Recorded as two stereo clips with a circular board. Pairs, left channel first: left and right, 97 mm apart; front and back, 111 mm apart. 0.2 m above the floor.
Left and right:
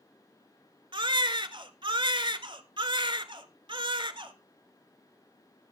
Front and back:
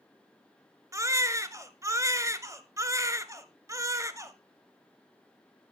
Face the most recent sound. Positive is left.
turn(degrees=-120)